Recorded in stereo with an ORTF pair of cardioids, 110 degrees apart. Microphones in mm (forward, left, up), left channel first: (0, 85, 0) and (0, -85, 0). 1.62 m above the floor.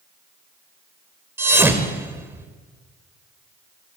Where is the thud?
15° right, 3.5 m.